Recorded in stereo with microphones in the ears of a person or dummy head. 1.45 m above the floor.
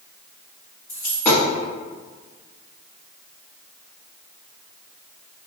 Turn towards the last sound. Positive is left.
turn(degrees=5)  # may be behind; listen again after turning